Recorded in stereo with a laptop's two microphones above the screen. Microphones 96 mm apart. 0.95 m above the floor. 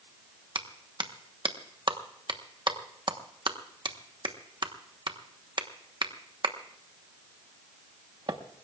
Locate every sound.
0.6 s a clap: 55° right (ahead or behind), 1.1 m